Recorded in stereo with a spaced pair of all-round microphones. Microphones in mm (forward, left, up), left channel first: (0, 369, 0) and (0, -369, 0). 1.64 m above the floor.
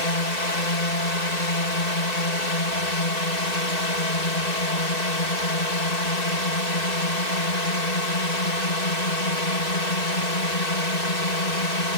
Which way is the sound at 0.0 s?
65° left (ahead or behind).